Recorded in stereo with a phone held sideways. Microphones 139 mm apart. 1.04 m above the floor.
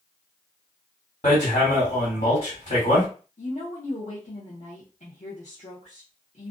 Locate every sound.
1.2 s hammering: 60° left (ahead or behind), 1.6 m
3.4 s a woman speaking: 55° left (ahead or behind), 0.7 m